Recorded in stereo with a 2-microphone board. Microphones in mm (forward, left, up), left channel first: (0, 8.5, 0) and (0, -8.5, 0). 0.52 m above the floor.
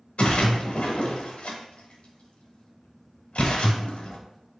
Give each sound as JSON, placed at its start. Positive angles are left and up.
{"t": 0.2, "sound": "a splash", "side_deg": 85, "distance_m": 0.8}